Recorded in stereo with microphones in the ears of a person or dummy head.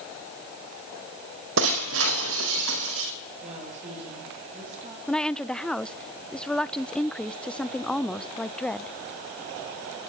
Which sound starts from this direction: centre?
A woman speaking, at 5.1 s.